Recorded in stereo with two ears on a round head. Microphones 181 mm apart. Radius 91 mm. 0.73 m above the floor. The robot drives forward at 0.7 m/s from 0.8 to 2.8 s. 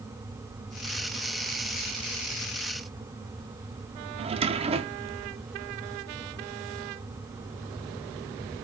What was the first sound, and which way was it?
A drawer, 30° right (ahead or behind).